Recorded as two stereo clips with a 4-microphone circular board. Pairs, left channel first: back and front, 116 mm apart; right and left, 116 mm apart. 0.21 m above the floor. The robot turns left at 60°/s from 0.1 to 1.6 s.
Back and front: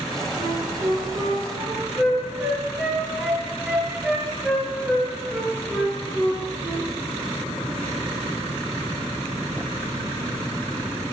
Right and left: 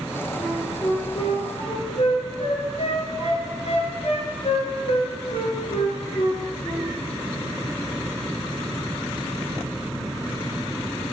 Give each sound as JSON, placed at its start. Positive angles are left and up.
{"t": 0.4, "sound": "a flute", "azimuth_deg": -10, "distance_m": 3.5}